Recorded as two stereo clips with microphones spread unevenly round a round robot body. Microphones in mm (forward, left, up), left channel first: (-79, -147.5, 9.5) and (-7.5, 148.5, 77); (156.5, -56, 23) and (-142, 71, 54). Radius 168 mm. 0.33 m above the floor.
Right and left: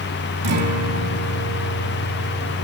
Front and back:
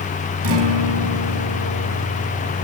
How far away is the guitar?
About 3.5 m.